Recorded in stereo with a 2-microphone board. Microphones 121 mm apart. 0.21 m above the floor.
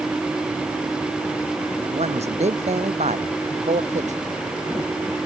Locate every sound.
1.9 s a man speaking: 65° right (ahead or behind); by 4.2 s 70° right (ahead or behind)